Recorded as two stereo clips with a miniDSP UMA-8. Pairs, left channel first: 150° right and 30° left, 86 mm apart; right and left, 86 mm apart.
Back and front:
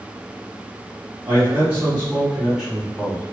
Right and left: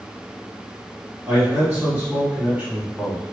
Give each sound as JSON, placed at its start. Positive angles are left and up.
{"t": 1.3, "sound": "a man speaking", "azimuth_deg": 45, "distance_m": 1.6}